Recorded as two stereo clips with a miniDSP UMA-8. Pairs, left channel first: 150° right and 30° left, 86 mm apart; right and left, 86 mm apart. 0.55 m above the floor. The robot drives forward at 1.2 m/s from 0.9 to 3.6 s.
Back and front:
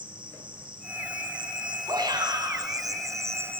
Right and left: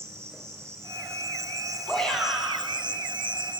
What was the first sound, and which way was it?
An insect, 30° left.